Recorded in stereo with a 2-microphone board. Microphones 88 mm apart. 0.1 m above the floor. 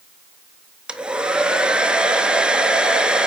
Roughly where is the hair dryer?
Centre.